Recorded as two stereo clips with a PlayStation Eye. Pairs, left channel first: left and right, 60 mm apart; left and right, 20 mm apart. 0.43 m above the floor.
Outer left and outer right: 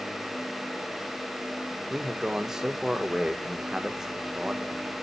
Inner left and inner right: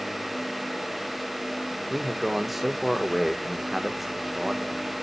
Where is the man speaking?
10° right (ahead or behind), 1.2 m.